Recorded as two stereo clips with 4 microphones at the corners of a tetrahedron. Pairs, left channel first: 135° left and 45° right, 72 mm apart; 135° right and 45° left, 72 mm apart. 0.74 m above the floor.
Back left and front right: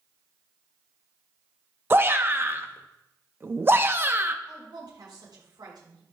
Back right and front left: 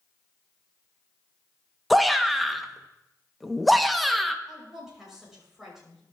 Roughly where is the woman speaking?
Ahead right.